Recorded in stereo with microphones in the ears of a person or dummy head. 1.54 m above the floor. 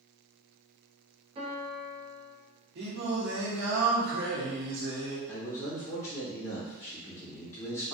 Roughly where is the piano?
Right.